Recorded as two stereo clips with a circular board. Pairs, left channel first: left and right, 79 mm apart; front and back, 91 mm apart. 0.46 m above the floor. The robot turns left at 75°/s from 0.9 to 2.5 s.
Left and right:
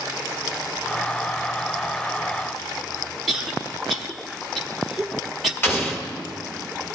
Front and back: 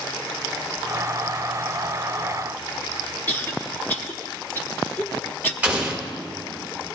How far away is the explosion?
About 1.5 m.